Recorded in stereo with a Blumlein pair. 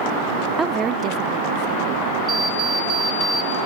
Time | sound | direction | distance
0.6 | a woman speaking | 5° right | 0.5 m
2.3 | an alarm clock | 10° right | 2 m